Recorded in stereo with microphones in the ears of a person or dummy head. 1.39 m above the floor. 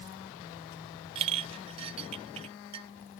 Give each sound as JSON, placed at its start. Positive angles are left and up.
{"t": 1.1, "sound": "a clink", "side_deg": -35}